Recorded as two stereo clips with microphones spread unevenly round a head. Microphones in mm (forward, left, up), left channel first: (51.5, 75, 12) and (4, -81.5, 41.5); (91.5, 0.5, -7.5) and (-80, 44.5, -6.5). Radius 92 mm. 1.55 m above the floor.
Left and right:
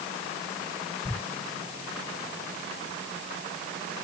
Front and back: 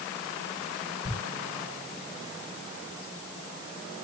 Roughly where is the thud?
Behind.